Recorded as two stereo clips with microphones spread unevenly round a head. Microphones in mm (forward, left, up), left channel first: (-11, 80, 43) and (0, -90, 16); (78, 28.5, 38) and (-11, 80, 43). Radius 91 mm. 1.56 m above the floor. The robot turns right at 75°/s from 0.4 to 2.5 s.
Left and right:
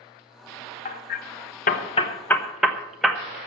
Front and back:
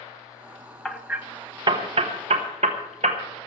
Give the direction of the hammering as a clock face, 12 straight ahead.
10 o'clock.